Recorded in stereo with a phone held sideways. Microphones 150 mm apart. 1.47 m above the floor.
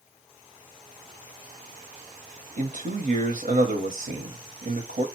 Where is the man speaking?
70° right (ahead or behind), 0.9 m.